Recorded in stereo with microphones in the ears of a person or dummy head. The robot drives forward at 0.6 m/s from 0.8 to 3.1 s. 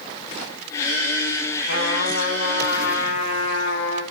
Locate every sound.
1.7 s a trumpet: 75° left (ahead or behind), 9 m; by 4.0 s 80° left, 8.5 m